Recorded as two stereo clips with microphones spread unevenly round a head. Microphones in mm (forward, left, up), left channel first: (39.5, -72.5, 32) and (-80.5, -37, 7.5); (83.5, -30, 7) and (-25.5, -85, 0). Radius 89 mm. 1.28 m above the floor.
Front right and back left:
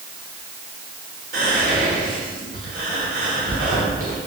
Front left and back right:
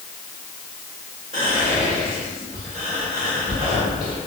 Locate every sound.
1.3 s whispering: 145° left, 1.2 m